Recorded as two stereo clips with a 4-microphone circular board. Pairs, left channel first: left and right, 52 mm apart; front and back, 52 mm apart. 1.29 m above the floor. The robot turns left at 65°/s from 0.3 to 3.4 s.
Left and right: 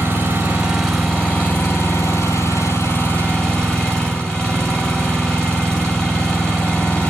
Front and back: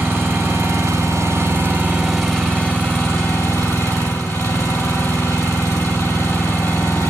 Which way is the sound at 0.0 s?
145° right.